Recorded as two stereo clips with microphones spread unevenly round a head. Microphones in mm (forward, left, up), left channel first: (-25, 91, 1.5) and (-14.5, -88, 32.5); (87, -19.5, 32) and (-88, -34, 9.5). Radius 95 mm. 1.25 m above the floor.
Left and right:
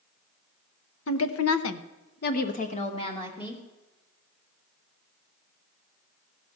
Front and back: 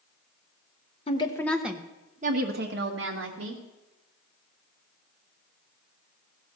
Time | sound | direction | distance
1.1 | a woman speaking | 65° left | 1.0 m